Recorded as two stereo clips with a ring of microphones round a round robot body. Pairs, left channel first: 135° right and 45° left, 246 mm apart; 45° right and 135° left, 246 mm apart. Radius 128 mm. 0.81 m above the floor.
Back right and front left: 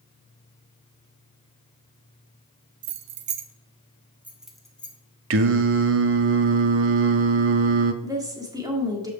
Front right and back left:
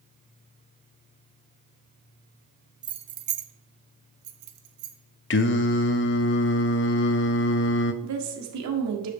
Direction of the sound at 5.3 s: 5° left.